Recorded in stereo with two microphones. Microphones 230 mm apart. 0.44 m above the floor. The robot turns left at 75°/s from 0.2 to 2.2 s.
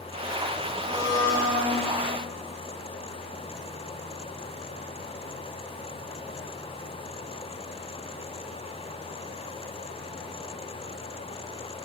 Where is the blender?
65° right, 1.8 m; by 1.8 s 140° right, 1.8 m.